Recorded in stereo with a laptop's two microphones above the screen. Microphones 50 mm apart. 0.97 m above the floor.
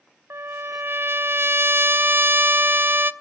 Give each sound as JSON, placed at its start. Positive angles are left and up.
{"t": 0.3, "sound": "a trumpet", "side_deg": -50, "distance_m": 0.8}